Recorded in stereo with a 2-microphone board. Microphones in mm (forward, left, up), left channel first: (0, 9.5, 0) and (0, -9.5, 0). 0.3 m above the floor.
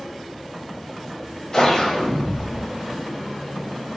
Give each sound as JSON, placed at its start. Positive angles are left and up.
{"t": 1.5, "sound": "a whoosh", "side_deg": 30, "distance_m": 0.6}